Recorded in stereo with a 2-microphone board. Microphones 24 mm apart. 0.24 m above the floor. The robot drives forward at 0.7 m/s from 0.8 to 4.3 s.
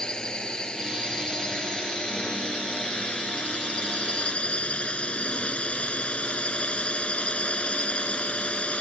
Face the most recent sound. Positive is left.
turn(degrees=60)  # may be behind; listen again after turning